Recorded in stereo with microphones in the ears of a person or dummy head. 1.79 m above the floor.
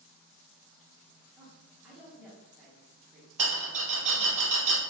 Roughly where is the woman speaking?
Centre.